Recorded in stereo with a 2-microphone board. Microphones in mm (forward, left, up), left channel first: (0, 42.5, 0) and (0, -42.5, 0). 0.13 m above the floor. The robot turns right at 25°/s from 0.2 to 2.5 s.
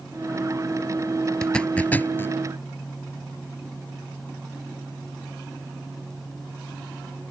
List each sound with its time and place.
1.4 s a zipper: 5° left (ahead or behind); by 2.4 s 25° left (ahead or behind)